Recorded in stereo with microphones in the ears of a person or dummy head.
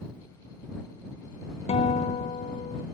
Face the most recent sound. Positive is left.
turn(degrees=30)  # may be behind; listen again after turning